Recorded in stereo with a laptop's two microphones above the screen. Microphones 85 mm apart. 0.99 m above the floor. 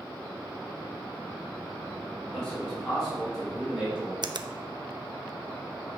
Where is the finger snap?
60° right (ahead or behind), 0.6 m.